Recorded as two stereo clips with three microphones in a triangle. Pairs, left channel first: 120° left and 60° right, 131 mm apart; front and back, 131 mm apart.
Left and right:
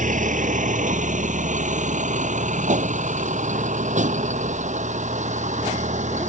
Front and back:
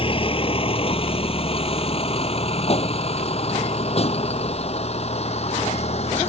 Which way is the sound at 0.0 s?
45° right.